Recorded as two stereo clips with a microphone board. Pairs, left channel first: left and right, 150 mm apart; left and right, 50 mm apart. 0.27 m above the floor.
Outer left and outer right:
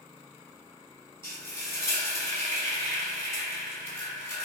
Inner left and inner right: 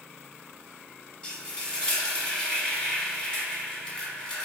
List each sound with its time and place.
1.2 s frying: 15° left (ahead or behind), 1.2 m